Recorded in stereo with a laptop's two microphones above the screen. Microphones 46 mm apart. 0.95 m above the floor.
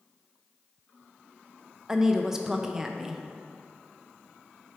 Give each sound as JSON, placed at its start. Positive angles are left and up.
{"t": 1.9, "sound": "a woman speaking", "side_deg": -10, "distance_m": 0.5}